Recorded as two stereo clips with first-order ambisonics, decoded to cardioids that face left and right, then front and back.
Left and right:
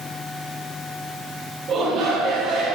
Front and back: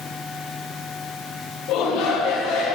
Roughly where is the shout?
Ahead right.